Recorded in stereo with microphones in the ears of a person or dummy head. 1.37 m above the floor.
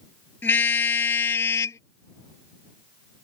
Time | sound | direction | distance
0.4 | a car horn | 10° left (ahead or behind) | ?